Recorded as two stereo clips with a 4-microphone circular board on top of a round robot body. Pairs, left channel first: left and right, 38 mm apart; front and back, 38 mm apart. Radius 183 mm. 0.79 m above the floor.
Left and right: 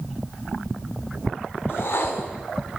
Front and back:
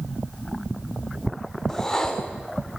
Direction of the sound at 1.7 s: 75° left.